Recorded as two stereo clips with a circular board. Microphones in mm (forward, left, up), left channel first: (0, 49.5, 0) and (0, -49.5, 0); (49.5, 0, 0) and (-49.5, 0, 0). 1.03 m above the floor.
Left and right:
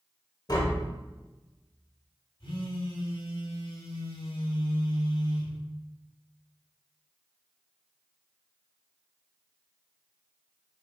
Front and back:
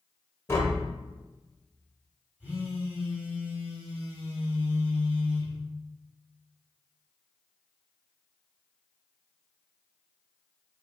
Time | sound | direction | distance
0.5 | tapping | 55° left | 1.0 m
2.4 | a phone buzzing | 110° left | 1.6 m